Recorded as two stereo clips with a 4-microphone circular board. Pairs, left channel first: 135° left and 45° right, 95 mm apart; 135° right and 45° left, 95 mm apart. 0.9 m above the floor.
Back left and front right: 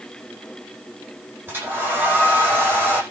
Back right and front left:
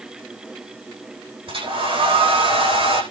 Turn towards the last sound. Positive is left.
turn(degrees=25)